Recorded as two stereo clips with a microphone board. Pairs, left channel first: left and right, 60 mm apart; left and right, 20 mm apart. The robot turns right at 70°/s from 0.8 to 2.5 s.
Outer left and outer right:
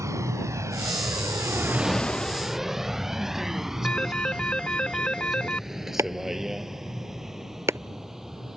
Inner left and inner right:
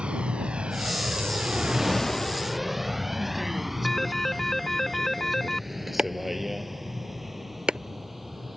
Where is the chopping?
55° right (ahead or behind).